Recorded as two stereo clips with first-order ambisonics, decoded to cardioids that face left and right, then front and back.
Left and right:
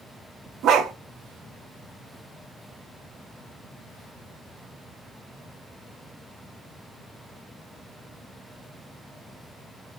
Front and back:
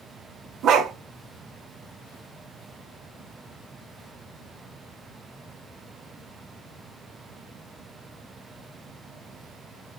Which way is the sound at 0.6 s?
135° right.